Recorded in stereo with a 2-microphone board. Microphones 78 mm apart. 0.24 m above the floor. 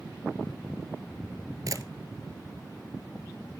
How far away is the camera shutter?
About 0.9 m.